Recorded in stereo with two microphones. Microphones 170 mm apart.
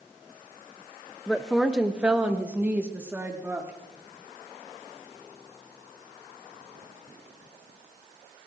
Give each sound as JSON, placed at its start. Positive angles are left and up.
{"t": 1.3, "sound": "a woman speaking", "side_deg": 5, "distance_m": 0.6}